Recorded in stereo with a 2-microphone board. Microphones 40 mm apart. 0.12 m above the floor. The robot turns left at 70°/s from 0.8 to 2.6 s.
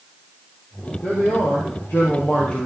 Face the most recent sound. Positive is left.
turn(degrees=30)